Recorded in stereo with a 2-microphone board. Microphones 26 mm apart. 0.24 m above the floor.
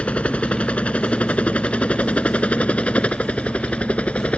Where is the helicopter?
55° left (ahead or behind).